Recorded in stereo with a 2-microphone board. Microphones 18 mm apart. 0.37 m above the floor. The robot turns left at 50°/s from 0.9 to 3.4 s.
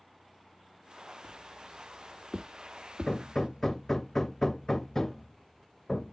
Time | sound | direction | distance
1.2 | footsteps | 45° left (ahead or behind) | 3 m
3.1 | hammering | 40° left (ahead or behind) | 0.6 m